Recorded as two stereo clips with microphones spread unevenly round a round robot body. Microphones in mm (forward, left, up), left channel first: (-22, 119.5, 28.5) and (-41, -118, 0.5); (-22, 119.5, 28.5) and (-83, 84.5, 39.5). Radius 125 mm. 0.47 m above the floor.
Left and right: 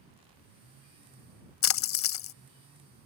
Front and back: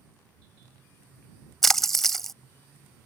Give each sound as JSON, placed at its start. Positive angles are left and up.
{"t": 1.6, "sound": "a splash", "azimuth_deg": 120}